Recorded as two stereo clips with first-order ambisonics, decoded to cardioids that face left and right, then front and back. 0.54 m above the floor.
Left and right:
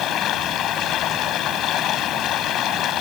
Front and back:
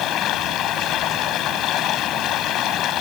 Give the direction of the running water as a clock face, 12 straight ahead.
11 o'clock.